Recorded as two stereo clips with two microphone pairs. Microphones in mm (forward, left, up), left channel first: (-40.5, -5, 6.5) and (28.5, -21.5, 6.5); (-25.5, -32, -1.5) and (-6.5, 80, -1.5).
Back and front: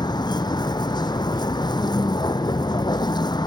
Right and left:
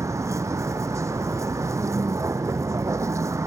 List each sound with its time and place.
0.0 s a vehicle: 145° left